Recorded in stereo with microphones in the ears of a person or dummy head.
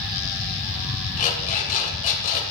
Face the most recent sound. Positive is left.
turn(degrees=45)  # may be behind; listen again after turning